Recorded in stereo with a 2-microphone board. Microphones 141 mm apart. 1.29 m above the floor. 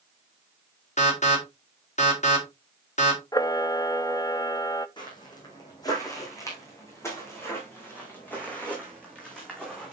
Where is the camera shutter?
25° left (ahead or behind), 0.5 m.